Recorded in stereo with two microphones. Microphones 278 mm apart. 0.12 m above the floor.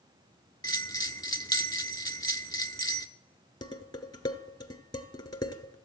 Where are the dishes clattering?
15° left (ahead or behind), 1.0 m.